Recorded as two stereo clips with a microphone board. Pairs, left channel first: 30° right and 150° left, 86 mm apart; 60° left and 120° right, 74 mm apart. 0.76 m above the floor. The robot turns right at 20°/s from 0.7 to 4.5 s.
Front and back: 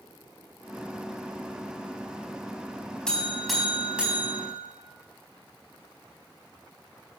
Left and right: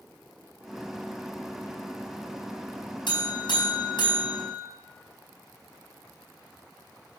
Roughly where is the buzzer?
Ahead left.